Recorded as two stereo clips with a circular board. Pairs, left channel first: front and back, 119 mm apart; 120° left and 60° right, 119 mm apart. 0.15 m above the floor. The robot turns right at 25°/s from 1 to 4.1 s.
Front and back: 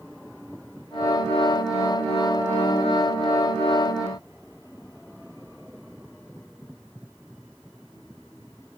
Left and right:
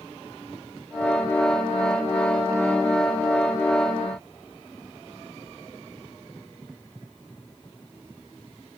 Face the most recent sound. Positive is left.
No sound to turn to.